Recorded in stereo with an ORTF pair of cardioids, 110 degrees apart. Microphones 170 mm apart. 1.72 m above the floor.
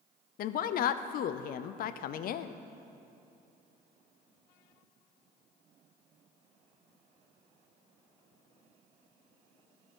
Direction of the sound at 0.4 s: 60° left.